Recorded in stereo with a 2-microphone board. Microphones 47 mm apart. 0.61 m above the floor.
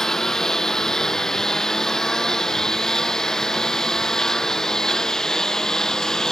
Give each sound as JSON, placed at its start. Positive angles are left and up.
{"t": 0.0, "sound": "a lawn mower", "side_deg": 10}